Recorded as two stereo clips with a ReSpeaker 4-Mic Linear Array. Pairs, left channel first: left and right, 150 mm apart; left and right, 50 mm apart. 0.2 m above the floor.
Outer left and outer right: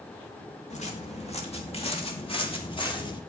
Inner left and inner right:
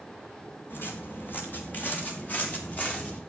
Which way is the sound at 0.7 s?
50° left (ahead or behind).